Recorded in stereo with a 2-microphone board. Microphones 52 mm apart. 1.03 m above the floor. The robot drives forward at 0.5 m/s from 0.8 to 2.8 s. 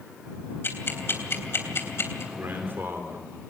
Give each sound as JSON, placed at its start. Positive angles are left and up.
{"t": 0.6, "sound": "ticking", "side_deg": 45, "distance_m": 3.0}
{"t": 2.3, "sound": "a man speaking", "side_deg": -45, "distance_m": 3.5}